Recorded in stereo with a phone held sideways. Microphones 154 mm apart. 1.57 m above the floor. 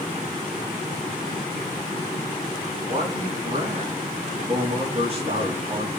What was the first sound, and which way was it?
A man speaking, 40° right (ahead or behind).